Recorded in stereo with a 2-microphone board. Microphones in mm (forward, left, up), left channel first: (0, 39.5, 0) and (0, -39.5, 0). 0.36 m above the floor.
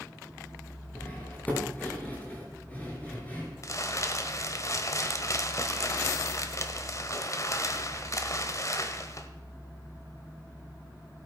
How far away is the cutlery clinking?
About 3.5 m.